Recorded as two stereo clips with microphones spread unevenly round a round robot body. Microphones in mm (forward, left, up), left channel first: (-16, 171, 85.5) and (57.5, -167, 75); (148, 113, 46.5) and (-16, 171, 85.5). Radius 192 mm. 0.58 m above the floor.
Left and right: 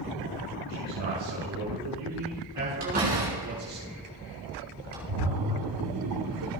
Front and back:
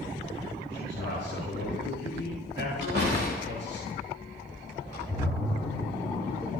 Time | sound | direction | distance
0.7 | a man speaking | 100° right | 7 m
2.8 | a door slam | 145° right | 5.5 m
5.1 | a splash | 100° right | 1.7 m